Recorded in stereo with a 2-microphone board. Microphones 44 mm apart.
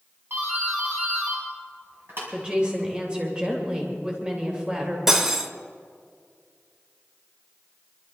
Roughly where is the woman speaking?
Right.